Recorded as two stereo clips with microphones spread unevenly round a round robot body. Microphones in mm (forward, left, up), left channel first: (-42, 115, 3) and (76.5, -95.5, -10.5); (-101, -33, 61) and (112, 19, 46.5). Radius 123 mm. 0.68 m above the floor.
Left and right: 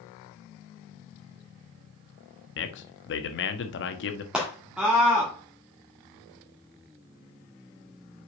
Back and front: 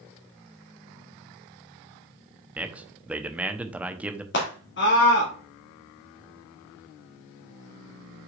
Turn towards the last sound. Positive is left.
turn(degrees=-145)